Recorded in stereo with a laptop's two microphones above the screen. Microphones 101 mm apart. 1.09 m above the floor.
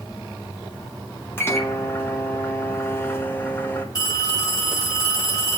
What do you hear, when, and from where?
1.4 s a microwave: 25° left (ahead or behind), 1.0 m
4.0 s a phone ringing: 40° left (ahead or behind), 5.5 m